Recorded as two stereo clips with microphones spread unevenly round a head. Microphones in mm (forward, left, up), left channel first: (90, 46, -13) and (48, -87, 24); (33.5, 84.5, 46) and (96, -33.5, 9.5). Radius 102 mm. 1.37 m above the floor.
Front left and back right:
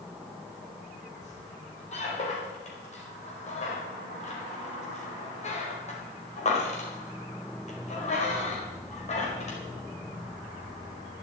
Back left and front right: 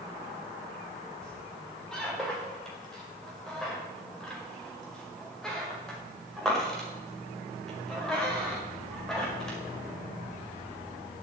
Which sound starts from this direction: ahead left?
A squeak, at 1.2 s.